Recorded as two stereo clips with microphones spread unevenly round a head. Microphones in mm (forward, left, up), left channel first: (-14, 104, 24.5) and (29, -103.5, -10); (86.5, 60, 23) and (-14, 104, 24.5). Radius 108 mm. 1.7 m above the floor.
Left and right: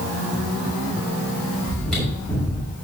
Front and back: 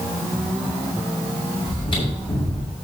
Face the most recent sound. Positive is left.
turn(degrees=15)